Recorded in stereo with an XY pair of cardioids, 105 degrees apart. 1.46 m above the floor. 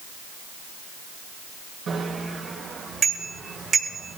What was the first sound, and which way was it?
A bicycle bell, 55° right.